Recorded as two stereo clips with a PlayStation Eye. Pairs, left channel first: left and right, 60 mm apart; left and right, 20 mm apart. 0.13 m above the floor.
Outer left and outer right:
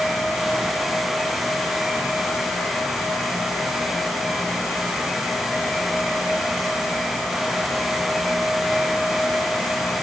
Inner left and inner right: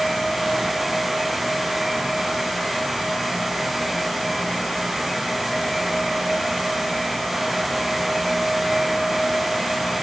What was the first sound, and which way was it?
Only background noise.